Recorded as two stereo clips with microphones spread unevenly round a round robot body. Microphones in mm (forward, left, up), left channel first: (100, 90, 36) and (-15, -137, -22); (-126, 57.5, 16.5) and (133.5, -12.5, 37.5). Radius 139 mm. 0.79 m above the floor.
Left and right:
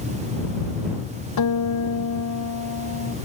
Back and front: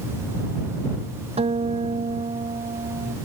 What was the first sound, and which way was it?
A guitar, 55° left.